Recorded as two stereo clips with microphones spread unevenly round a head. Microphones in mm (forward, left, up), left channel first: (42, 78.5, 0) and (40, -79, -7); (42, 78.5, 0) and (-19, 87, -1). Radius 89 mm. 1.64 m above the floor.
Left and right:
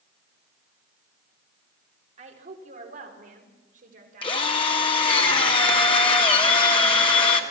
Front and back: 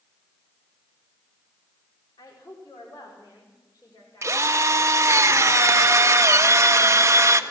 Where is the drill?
145° left, 1.5 m.